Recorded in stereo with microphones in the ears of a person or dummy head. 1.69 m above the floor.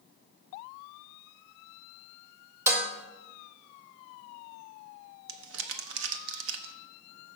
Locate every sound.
2.7 s dishes clattering: 15° right (ahead or behind), 1.7 m
5.3 s crumpling: 70° right (ahead or behind), 0.9 m